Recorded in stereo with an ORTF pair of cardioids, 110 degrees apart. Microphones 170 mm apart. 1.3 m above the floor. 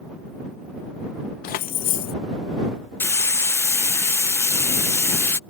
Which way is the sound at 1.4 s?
65° left.